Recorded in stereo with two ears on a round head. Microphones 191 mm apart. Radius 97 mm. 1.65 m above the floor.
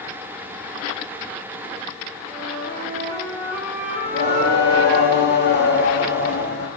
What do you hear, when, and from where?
2.3 s a flute: 15° left (ahead or behind), 3.5 m
4.0 s singing: 50° left (ahead or behind), 1.1 m